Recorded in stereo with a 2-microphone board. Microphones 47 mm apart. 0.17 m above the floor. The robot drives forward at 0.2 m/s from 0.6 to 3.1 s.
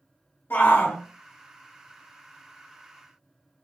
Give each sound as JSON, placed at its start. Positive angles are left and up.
{"t": 0.5, "sound": "a shout", "side_deg": 55, "distance_m": 2.5}